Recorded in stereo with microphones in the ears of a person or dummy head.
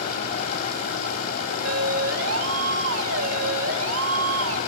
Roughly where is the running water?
Left.